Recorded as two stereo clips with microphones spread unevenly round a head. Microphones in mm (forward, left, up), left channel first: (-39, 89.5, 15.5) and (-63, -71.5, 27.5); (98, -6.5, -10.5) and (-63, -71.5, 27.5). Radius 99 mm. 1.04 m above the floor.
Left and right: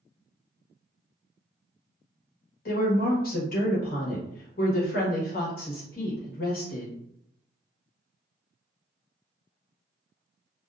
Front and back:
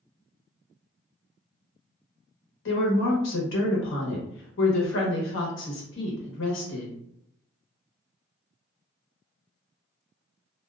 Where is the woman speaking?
40° left, 1.0 m.